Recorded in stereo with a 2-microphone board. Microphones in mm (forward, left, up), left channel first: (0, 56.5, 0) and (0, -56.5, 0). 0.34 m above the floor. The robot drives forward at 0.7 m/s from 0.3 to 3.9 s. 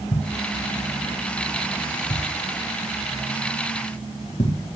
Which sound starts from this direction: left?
A thud, at 0.1 s.